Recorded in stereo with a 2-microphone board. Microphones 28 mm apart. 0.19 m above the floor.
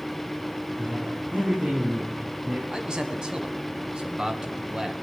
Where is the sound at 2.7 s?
30° right (ahead or behind), 1.4 m.